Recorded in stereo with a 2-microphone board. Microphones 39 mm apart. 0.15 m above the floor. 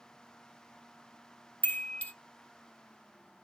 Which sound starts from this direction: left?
A chime, at 1.6 s.